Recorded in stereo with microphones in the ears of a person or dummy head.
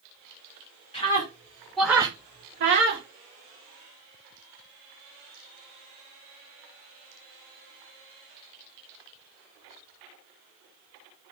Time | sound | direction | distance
0.9 | a scream | 25° left (ahead or behind) | 1.7 m